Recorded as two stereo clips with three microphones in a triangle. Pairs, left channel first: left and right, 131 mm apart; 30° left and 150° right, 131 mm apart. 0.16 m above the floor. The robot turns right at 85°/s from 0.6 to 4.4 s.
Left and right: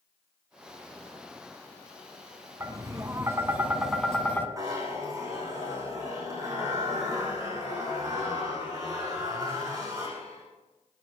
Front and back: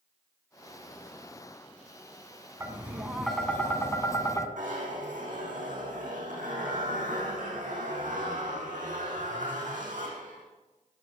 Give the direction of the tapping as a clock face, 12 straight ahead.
4 o'clock.